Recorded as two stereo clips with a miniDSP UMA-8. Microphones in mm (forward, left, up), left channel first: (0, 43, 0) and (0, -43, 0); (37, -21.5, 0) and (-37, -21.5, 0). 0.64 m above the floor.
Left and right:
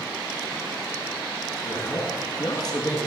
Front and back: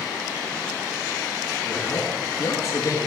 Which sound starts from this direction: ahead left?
A man speaking, at 1.6 s.